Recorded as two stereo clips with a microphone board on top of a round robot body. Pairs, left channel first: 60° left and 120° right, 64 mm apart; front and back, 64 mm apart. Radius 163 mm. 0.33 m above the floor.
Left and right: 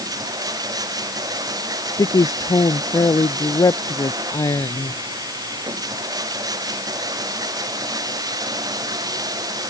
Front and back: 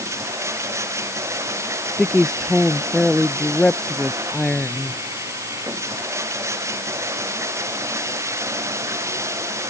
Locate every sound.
0.0 s running water: 135° right
2.0 s a woman speaking: 85° left